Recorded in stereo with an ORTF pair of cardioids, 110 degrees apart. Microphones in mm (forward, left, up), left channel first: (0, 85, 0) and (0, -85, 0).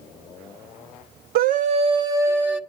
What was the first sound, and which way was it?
A scream, 60° right.